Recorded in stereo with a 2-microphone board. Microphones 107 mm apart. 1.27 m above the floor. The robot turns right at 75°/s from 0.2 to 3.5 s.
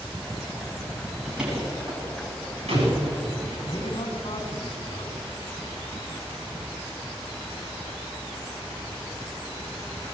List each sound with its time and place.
1.2 s a door slam: centre (ahead or behind), 8.5 m; by 3.0 s 55° right (ahead or behind), 8.5 m
3.7 s a man speaking: 55° left (ahead or behind), 5 m